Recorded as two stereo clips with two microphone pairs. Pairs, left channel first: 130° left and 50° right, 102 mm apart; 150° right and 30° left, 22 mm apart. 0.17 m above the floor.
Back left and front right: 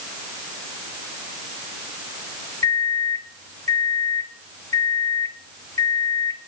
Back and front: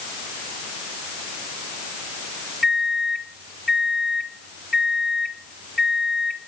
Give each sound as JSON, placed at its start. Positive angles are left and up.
{"t": 2.6, "sound": "a microwave", "azimuth_deg": 120, "distance_m": 0.9}